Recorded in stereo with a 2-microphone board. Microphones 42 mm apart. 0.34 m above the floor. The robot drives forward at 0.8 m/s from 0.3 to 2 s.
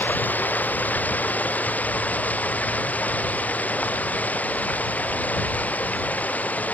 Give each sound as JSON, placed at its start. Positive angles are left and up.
{"t": 0.0, "sound": "running water", "side_deg": 45}